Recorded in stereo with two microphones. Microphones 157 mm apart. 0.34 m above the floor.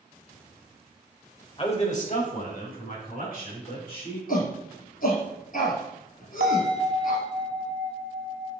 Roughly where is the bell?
Right.